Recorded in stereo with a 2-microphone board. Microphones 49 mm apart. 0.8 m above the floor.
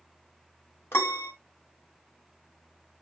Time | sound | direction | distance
0.9 | a piano | 50° left (ahead or behind) | 1.3 m